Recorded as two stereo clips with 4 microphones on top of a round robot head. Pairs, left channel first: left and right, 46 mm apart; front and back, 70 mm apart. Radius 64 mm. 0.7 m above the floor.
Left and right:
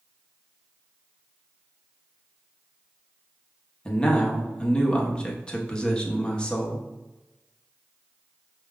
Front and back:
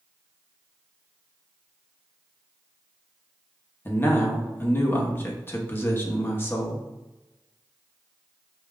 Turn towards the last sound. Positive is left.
turn(degrees=35)